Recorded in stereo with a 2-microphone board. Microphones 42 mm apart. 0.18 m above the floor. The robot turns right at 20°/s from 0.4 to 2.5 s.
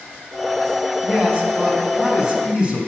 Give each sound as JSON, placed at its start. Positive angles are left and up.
{"t": 1.0, "sound": "a man speaking", "side_deg": -25, "distance_m": 1.1}